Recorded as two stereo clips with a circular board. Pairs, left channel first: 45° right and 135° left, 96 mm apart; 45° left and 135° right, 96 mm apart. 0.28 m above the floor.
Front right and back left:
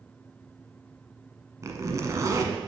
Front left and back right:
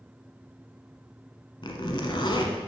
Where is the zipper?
80° left, 1.0 m.